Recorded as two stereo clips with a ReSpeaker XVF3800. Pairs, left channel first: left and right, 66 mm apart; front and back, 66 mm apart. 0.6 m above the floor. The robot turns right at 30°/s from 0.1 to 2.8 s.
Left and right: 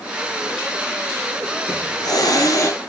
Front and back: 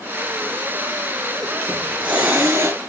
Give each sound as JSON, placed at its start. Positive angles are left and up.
{"t": 1.7, "sound": "a hiss", "azimuth_deg": 100, "distance_m": 5.0}